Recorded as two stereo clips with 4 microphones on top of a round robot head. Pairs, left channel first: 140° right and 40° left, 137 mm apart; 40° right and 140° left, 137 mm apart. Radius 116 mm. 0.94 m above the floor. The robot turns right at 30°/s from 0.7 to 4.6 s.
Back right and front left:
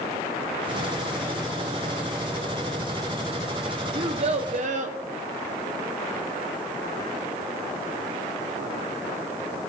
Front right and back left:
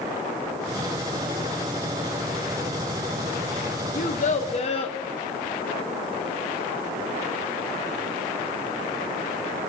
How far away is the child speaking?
About 0.8 m.